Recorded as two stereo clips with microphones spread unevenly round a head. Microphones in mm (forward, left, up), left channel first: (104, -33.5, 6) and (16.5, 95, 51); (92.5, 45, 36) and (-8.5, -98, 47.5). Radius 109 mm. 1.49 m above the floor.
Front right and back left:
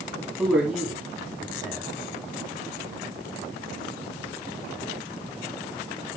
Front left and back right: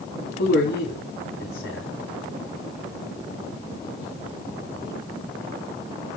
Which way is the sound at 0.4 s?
35° left.